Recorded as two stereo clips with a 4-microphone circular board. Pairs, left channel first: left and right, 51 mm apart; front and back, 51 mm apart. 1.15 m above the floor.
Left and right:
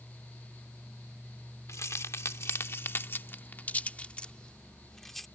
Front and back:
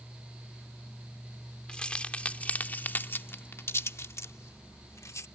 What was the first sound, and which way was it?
Keys jangling, 75° left.